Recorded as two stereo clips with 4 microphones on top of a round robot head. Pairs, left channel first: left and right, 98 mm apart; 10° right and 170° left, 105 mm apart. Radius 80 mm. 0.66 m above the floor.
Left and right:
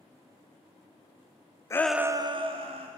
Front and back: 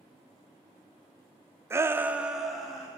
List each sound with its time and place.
1.7 s a shout: 125° left, 0.6 m; by 2.9 s 100° right, 1.4 m